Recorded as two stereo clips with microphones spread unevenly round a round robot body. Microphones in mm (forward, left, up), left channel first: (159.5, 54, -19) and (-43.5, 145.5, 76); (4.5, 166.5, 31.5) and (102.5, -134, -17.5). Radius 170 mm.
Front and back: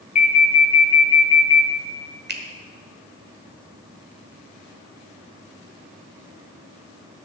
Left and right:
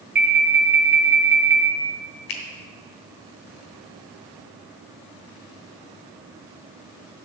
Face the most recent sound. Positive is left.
turn(degrees=95)